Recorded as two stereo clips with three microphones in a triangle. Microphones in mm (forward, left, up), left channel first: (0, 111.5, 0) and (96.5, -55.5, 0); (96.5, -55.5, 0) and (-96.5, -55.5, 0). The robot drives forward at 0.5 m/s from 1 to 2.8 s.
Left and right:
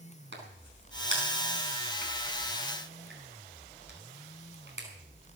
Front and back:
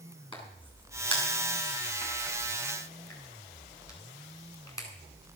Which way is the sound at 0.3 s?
65° right.